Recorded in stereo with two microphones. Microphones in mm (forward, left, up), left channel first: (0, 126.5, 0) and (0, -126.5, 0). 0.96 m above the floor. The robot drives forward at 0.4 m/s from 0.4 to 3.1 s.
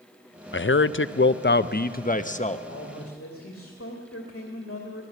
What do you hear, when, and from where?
0.5 s a man speaking: 50° left (ahead or behind), 0.5 m; by 2.6 s 30° left (ahead or behind), 0.9 m
2.7 s a man speaking: 70° left (ahead or behind), 2 m; by 5.0 s 65° left (ahead or behind), 2.5 m